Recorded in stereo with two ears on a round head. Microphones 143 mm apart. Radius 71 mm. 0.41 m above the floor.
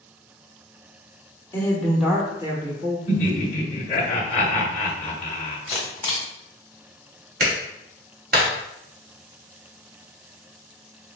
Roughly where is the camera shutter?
Centre.